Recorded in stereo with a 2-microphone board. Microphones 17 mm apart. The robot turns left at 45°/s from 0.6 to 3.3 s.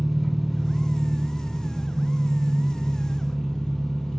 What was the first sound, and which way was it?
An engine running, 165° right.